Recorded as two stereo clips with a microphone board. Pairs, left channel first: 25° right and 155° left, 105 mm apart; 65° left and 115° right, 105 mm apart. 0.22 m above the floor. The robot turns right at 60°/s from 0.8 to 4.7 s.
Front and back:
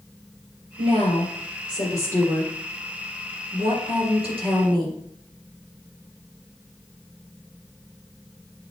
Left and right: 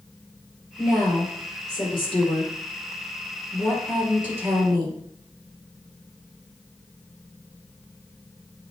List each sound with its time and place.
0.8 s a woman speaking: 35° right, 4.5 m; by 5.0 s 160° right, 4.5 m